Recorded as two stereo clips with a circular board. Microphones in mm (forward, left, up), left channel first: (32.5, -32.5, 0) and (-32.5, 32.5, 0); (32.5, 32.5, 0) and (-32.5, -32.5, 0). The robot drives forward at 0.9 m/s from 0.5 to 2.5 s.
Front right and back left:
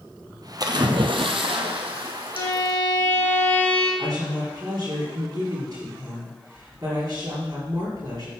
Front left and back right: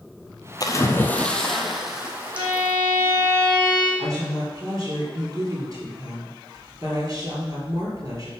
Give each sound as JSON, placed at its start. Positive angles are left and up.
{"t": 0.6, "sound": "a splash", "azimuth_deg": 95, "distance_m": 1.0}
{"t": 2.3, "sound": "a violin", "azimuth_deg": -85, "distance_m": 4.5}
{"t": 4.0, "sound": "a woman speaking", "azimuth_deg": 180, "distance_m": 4.5}